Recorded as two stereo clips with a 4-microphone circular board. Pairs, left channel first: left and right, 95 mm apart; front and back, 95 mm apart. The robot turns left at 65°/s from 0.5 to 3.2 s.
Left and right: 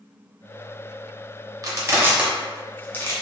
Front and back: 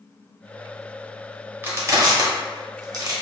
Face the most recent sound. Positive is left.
turn(degrees=135)